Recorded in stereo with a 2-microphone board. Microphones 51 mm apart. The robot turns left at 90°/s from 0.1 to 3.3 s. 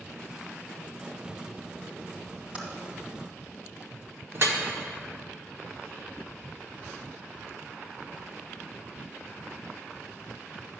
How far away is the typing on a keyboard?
About 2 m.